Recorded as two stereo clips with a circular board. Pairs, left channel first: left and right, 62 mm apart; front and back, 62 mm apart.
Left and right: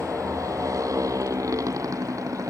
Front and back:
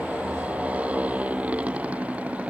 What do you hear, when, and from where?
0.0 s a motorcycle: 115° right